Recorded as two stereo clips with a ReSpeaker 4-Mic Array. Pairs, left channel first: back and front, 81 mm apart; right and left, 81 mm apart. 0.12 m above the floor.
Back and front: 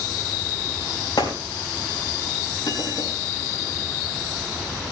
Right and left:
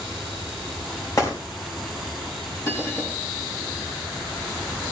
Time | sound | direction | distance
1.2 | a gunshot | 140° right | 5 m
2.6 | a bell | 150° right | 3.5 m